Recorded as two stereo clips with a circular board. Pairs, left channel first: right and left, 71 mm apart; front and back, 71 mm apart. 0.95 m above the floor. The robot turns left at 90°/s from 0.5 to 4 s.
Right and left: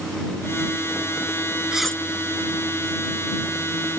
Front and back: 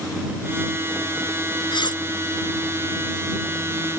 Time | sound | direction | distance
1.7 | cutlery clinking | 10° left | ?